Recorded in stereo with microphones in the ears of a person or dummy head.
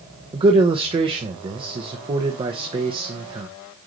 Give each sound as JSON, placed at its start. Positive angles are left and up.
{"t": 0.3, "sound": "a man speaking", "side_deg": -30, "distance_m": 1.3}